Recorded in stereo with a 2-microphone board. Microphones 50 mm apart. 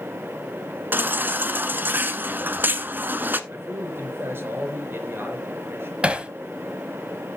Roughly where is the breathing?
I don't hear breathing.